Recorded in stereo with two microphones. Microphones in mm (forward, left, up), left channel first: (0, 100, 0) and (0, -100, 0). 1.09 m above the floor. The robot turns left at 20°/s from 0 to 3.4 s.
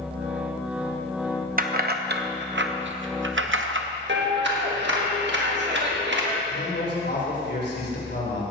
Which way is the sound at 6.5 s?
60° left (ahead or behind).